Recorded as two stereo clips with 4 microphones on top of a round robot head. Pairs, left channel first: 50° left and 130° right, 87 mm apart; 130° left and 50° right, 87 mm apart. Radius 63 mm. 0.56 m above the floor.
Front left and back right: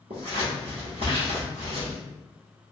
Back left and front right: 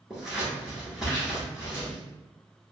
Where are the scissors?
130° right, 1.2 m.